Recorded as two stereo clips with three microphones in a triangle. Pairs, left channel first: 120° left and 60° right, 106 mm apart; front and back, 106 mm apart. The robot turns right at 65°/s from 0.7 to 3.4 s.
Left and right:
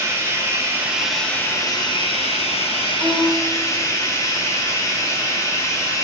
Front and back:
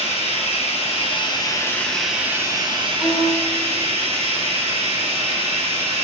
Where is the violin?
Straight ahead, 1.2 m; by 3.5 s 25° left, 1.2 m.